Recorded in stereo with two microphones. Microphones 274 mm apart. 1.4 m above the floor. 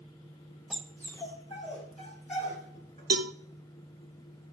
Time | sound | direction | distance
0.7 | a dog barking | centre (ahead or behind) | 1.1 m
3.1 | a cowbell | 60° right (ahead or behind) | 0.6 m